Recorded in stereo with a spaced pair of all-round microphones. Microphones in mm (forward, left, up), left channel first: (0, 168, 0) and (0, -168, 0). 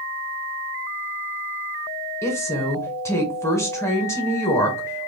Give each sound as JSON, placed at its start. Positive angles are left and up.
{"t": 2.2, "sound": "a woman speaking", "side_deg": 10, "distance_m": 1.4}